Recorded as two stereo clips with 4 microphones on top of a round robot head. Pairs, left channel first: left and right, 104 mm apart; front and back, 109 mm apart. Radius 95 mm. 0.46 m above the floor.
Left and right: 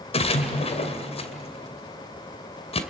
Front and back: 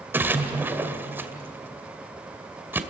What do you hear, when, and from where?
0.1 s a splash: 105° left, 2 m